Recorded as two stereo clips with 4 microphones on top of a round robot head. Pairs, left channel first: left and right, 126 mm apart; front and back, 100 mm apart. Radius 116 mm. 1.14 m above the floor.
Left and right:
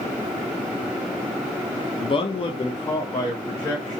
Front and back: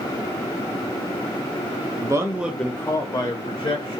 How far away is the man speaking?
About 0.6 m.